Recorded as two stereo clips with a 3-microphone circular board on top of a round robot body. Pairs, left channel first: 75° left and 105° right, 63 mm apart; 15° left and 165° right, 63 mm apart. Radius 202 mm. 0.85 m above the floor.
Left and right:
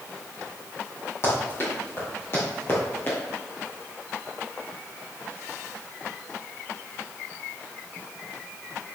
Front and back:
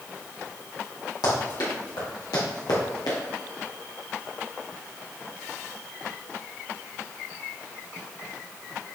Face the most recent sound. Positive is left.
turn(degrees=20)